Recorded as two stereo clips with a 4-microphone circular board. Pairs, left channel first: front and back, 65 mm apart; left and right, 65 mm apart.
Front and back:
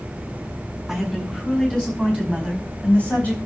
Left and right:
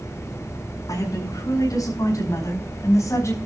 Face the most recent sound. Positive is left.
turn(degrees=65)